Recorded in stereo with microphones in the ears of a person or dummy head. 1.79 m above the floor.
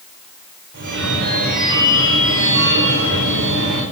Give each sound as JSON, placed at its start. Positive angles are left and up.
{"t": 0.7, "sound": "a phone ringing", "side_deg": -55, "distance_m": 4.5}